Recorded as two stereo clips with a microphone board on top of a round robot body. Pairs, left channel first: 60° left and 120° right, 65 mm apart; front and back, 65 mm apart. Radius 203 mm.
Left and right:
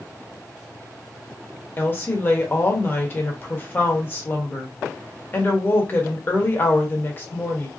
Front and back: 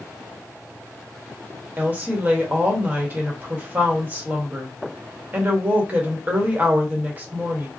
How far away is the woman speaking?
About 1.1 m.